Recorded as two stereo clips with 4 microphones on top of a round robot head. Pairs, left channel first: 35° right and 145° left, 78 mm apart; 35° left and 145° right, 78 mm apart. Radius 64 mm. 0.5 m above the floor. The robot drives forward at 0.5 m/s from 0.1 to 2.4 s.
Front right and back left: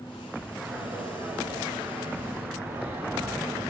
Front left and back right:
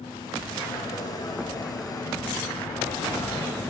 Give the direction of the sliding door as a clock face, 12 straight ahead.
10 o'clock.